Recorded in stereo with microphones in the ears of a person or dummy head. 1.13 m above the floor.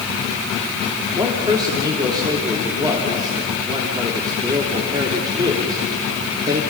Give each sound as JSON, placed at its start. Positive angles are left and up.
{"t": 1.2, "sound": "a man speaking", "side_deg": -20, "distance_m": 3.0}